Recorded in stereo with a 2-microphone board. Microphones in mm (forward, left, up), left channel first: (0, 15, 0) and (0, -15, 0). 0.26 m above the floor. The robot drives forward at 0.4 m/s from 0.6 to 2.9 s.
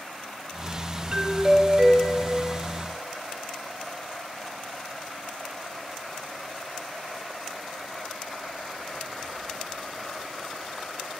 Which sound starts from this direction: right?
A doorbell, at 1.1 s.